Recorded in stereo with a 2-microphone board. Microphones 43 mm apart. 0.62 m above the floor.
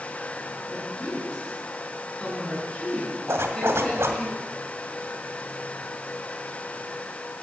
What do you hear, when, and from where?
0.7 s a woman speaking: 20° left (ahead or behind), 7 m
3.3 s a zipper: 80° right, 1.8 m